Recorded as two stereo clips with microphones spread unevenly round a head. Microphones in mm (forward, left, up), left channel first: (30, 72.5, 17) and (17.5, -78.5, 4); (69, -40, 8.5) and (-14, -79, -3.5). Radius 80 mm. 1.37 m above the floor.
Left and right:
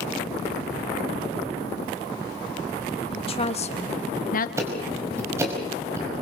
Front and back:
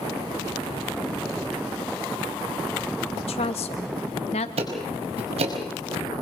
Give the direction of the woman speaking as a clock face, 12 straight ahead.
11 o'clock.